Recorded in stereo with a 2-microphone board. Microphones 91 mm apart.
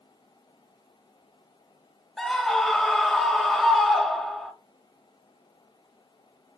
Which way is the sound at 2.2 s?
5° left (ahead or behind).